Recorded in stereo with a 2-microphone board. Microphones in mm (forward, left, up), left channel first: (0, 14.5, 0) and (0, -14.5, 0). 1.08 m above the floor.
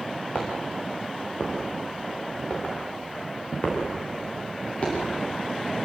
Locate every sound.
0.3 s footsteps: 45° left (ahead or behind), 6.5 m